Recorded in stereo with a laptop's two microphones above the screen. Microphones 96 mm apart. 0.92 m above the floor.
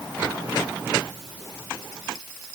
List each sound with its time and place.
Only background noise.